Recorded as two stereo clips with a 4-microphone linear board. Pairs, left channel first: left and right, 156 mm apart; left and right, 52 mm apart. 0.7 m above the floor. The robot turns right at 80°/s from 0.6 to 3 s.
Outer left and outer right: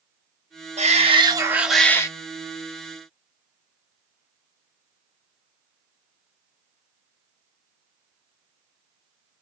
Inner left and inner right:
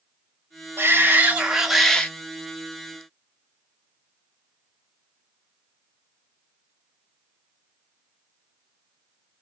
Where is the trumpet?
I don't hear a trumpet.